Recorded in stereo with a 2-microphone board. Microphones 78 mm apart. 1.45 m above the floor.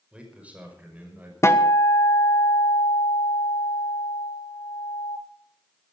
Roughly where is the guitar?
Left.